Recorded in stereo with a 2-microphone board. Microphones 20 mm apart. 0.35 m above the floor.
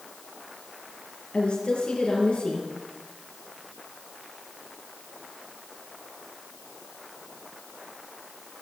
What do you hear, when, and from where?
1.3 s a woman speaking: 60° left (ahead or behind), 6.5 m